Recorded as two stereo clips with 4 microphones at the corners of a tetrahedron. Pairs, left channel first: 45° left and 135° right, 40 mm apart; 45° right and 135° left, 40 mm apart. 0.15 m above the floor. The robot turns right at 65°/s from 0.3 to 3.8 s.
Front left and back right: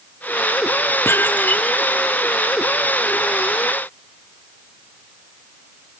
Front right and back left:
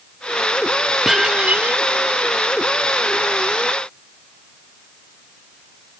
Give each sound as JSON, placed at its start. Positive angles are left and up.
{"t": 1.1, "sound": "dishes clattering", "azimuth_deg": 55}